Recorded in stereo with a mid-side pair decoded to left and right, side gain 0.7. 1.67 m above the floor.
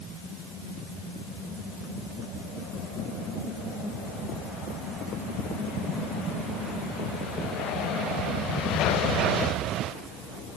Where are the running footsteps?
I don't hear running footsteps.